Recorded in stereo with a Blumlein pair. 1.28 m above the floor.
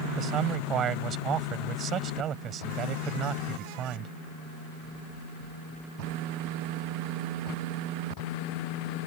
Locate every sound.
0.2 s a man speaking: 30° right